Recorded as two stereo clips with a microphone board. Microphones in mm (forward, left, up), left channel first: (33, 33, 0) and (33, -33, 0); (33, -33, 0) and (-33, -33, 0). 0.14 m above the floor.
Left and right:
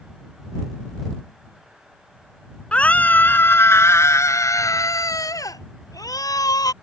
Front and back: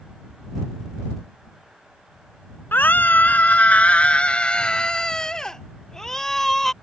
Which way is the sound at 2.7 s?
30° left.